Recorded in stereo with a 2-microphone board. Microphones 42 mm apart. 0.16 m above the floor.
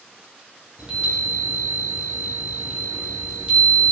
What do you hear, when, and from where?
0.8 s a chime: 25° right (ahead or behind), 3 m